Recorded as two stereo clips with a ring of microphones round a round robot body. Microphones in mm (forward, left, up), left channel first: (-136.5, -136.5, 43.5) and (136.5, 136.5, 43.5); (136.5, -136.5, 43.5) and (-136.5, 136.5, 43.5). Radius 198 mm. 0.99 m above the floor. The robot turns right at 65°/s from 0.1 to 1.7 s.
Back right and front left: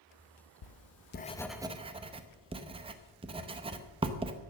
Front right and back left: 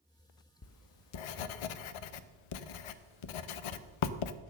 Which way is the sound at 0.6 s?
100° right.